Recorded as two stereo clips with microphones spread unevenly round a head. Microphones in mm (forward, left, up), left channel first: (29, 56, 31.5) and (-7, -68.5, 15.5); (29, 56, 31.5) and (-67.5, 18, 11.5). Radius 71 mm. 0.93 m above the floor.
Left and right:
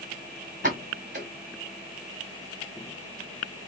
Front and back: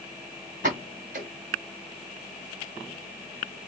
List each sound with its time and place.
0.6 s a pop: 145° right, 1.2 m